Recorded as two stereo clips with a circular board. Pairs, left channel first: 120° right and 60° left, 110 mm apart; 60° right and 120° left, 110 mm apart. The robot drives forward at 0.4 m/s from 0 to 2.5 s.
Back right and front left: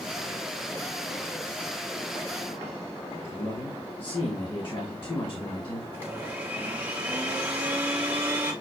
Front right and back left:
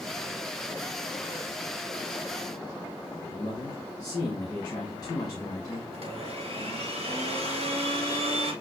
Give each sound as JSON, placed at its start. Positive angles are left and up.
{"t": 3.3, "sound": "a man speaking", "azimuth_deg": -105, "distance_m": 1.1}
{"t": 5.9, "sound": "a blender", "azimuth_deg": 130, "distance_m": 1.4}